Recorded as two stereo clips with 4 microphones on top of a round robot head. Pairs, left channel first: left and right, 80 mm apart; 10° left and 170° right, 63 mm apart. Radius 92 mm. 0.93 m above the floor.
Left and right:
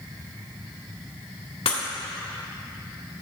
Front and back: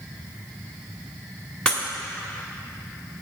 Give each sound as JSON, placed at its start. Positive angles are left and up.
{"t": 1.6, "sound": "breaking glass", "azimuth_deg": 85, "distance_m": 1.4}